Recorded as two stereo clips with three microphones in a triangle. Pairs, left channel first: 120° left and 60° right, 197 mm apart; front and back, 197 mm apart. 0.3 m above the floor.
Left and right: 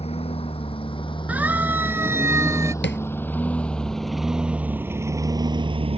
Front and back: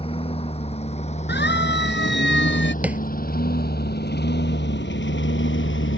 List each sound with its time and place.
0.0 s a lawn mower: 60° left; by 6.0 s straight ahead
1.3 s a siren: 20° left; by 2.7 s 15° left
2.8 s tapping: 100° left